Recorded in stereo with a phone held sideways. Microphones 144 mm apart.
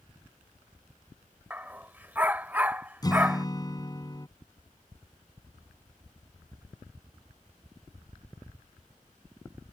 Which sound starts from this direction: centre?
A dog barking, at 1.5 s.